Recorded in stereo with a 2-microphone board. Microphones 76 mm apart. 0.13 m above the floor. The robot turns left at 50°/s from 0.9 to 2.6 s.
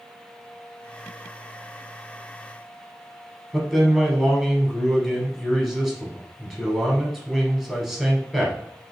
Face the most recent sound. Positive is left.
turn(degrees=-5)  # may be behind; listen again after turning